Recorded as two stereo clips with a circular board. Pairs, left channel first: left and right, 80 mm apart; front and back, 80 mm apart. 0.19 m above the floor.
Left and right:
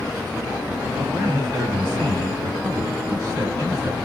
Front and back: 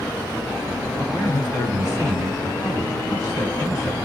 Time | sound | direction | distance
1.0 | a man speaking | 50° right | 1.9 m